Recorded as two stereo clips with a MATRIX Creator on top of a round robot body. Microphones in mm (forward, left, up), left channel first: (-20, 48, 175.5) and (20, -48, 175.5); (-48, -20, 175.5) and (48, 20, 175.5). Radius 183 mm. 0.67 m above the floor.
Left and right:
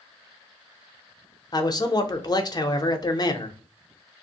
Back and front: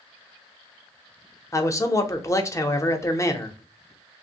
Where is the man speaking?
150° left, 0.9 m.